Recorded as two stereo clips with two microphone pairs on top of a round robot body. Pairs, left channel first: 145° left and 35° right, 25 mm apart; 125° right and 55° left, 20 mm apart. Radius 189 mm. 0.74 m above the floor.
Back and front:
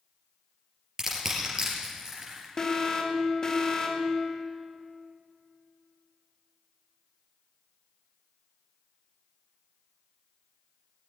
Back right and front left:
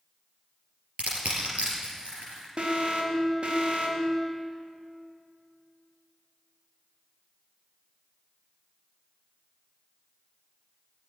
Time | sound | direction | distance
1.0 | crushing | 35° left | 3.5 m
2.6 | an alarm | 90° left | 2.5 m